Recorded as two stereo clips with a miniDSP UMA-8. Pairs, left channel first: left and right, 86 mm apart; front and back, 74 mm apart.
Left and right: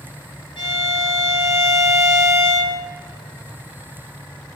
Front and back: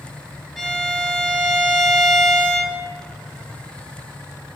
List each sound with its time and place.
0.6 s a violin: 80° left, 3.5 m